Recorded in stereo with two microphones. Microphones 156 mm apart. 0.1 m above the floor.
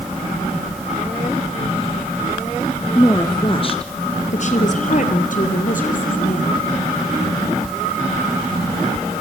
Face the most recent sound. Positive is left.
turn(degrees=60)  # may be behind; listen again after turning